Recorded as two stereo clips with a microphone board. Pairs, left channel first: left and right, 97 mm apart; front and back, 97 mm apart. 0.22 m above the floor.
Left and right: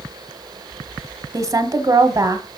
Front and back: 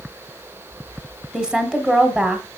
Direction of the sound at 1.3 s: 105° right.